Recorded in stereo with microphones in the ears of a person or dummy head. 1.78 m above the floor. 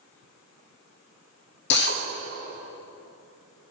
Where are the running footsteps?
I don't hear running footsteps.